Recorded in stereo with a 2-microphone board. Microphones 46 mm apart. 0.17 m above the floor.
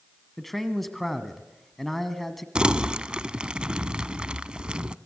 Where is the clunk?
I don't hear a clunk.